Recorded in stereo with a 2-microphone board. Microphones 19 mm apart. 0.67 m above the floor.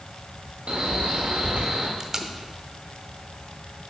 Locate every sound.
0.7 s a man speaking: 70° right (ahead or behind), 1.9 m
2.0 s tape being pulled: 25° right (ahead or behind), 0.7 m